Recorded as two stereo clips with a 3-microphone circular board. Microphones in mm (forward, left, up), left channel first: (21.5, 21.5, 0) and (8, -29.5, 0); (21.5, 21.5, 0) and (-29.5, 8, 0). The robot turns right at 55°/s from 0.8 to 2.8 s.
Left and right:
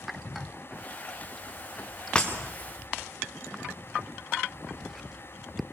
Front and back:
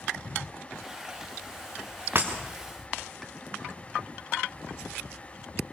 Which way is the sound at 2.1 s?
145° left.